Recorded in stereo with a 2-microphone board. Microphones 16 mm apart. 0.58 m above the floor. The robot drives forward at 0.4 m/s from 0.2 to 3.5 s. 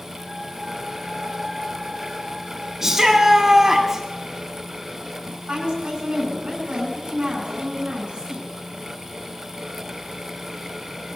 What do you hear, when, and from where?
2.8 s a shout: 25° right (ahead or behind), 1.1 m
5.3 s a woman speaking: 75° right (ahead or behind), 6.5 m